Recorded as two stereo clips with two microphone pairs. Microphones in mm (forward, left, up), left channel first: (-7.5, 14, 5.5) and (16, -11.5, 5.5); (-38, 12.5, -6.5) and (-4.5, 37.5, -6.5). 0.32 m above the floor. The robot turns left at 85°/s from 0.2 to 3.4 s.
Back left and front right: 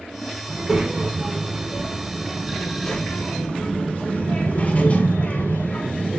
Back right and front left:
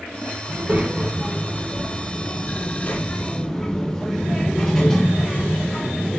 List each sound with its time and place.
0.5 s a child speaking: 30° left, 0.6 m; by 6.2 s 145° left, 0.6 m